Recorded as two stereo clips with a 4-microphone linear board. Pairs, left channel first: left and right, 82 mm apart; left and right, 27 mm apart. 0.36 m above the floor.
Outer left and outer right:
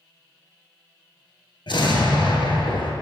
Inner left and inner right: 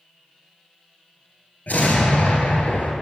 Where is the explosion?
75° left (ahead or behind), 0.9 m.